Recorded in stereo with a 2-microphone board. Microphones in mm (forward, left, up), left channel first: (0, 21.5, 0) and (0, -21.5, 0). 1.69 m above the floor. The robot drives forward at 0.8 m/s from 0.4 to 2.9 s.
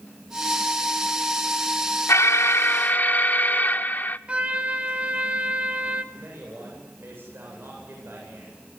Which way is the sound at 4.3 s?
30° right (ahead or behind).